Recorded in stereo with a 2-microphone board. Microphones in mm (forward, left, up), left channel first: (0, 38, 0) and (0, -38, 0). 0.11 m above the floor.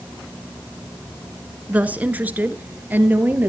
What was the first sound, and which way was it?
A woman speaking, 20° right (ahead or behind).